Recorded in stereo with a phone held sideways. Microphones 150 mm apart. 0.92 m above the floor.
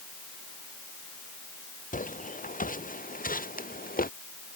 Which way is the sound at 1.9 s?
60° left (ahead or behind).